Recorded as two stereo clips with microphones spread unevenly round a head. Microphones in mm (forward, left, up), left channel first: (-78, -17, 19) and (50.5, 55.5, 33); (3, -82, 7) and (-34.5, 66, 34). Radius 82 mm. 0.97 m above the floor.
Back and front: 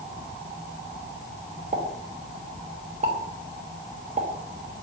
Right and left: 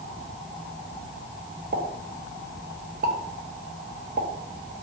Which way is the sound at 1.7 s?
70° left.